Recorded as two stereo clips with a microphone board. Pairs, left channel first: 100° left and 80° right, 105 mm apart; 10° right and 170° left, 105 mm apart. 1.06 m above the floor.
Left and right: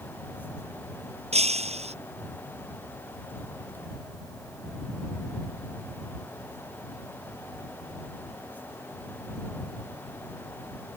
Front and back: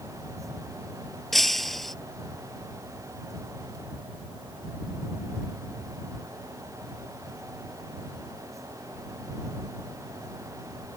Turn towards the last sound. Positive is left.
turn(degrees=-100)